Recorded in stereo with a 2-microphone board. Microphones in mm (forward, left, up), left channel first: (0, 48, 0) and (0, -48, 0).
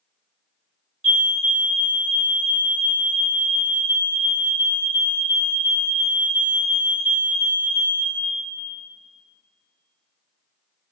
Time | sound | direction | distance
1.0 | a fire alarm | 5° right (ahead or behind) | 1.8 m